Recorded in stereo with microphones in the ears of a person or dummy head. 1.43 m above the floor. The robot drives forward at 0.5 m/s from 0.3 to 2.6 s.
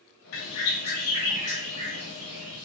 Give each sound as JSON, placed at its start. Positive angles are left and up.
{"t": 0.3, "sound": "a bird", "side_deg": 70, "distance_m": 0.6}